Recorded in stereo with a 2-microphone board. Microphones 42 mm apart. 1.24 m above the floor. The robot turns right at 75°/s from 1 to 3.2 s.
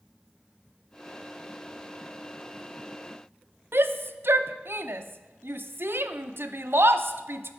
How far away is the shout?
About 0.6 m.